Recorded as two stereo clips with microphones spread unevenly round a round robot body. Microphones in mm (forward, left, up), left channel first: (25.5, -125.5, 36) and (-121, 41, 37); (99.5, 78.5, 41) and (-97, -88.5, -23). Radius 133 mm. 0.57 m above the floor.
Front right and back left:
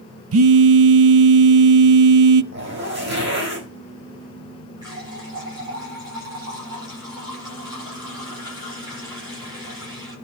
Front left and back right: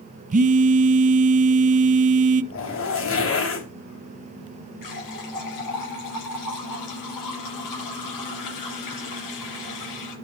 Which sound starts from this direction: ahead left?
A running tap, at 4.8 s.